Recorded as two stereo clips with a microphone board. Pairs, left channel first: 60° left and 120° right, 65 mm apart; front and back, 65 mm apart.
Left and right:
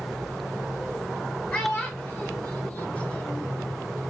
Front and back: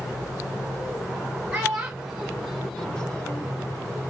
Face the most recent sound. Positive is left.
turn(degrees=15)